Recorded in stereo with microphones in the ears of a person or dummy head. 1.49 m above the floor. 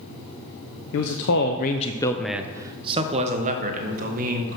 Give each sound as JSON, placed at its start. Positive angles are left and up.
{"t": 0.9, "sound": "a man speaking", "side_deg": 75, "distance_m": 0.8}